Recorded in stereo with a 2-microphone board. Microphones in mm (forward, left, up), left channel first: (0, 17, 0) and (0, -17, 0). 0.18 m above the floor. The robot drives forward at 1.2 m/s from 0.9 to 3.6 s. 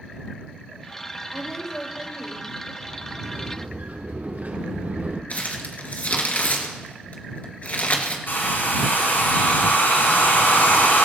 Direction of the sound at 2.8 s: 65° right (ahead or behind).